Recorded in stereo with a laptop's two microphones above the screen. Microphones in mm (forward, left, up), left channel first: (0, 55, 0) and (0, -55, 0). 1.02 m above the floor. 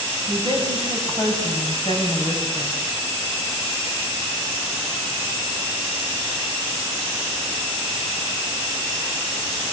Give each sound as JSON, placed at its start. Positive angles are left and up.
{"t": 0.3, "sound": "a woman speaking", "side_deg": 40, "distance_m": 7.0}